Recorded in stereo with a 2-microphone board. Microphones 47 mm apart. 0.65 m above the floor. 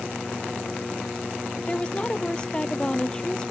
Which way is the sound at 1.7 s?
25° left (ahead or behind).